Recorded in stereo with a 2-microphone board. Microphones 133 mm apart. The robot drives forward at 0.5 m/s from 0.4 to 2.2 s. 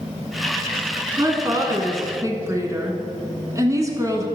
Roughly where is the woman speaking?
Right.